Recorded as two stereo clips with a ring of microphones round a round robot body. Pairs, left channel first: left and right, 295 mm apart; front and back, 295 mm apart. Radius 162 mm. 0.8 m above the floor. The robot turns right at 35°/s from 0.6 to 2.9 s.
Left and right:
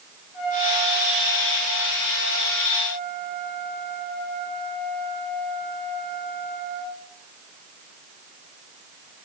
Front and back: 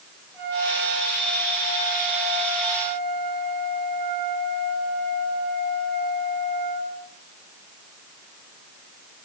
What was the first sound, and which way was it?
A trumpet, 95° left.